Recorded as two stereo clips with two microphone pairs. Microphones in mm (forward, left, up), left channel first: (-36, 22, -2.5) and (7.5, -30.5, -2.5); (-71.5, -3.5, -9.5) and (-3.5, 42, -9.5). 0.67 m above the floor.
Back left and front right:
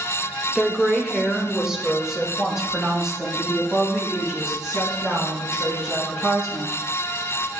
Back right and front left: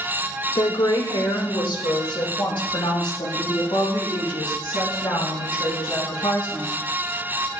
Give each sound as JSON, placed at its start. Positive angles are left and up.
{"t": 0.6, "sound": "a woman speaking", "azimuth_deg": -140, "distance_m": 1.2}